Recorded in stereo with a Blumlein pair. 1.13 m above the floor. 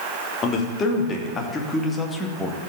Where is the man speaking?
25° left, 3 m; by 2.7 s straight ahead, 1.9 m.